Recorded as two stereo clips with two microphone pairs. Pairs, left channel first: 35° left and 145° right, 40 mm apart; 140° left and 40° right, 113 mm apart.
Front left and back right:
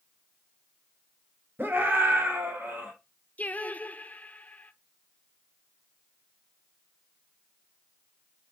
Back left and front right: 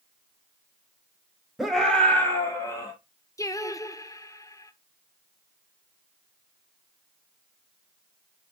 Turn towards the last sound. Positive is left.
turn(degrees=80)